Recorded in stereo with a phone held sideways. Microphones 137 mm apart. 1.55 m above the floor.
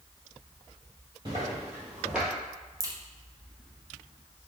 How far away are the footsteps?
About 1.9 m.